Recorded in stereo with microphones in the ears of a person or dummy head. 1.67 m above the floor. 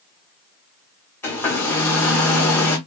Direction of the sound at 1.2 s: 10° left (ahead or behind).